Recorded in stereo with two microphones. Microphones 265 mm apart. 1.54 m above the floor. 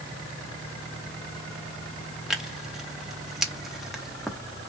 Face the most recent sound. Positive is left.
turn(degrees=0)  # may be behind; listen again after turning